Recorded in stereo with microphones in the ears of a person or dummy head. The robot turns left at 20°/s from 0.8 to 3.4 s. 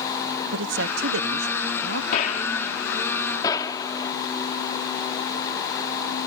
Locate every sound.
0.5 s a man speaking: 65° right (ahead or behind); by 2.0 s 80° right
2.1 s a gunshot: 50° left (ahead or behind); by 4.1 s 25° left (ahead or behind)